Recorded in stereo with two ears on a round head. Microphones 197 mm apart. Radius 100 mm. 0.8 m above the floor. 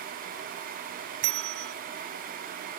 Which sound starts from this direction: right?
A bell, at 1.2 s.